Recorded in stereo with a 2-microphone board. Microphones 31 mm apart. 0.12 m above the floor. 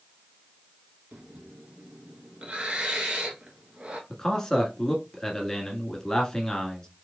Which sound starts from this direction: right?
Breathing, at 1.1 s.